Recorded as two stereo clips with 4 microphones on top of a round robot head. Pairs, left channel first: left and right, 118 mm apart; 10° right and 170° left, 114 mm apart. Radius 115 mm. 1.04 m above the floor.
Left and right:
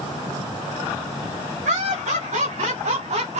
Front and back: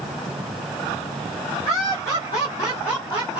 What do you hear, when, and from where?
1.6 s laughter: 75° right, 3.5 m; by 3.4 s 65° right, 3 m